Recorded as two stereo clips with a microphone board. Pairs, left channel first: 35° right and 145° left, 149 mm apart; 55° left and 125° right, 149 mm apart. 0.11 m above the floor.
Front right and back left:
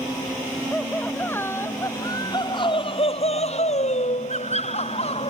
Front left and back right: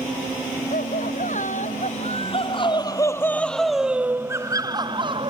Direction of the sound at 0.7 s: 45° left.